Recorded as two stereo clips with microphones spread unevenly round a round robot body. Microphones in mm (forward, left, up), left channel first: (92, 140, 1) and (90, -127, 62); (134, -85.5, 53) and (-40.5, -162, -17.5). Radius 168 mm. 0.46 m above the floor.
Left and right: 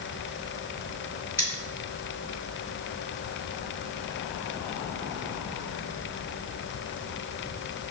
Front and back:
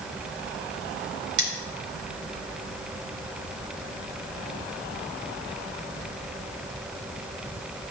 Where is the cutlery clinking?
175° right, 1.1 m.